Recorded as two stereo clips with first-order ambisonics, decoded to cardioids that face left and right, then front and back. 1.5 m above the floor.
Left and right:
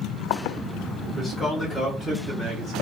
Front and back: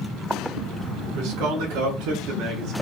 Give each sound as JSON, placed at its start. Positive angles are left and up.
{"t": 1.1, "sound": "a man speaking", "azimuth_deg": 180, "distance_m": 1.9}